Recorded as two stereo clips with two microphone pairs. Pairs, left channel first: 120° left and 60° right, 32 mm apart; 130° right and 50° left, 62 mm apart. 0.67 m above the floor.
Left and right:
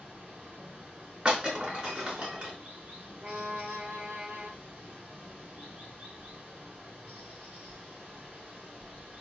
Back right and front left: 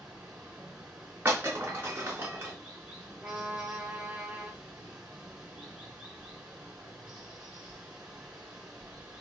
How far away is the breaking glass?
About 3.5 m.